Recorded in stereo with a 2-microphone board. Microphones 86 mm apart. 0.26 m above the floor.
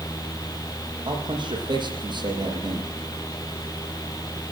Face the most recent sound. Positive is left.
turn(degrees=-70)  # may be behind; listen again after turning